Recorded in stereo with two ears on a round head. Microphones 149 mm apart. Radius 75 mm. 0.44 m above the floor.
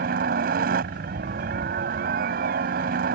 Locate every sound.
0.0 s a helicopter: 55° right (ahead or behind)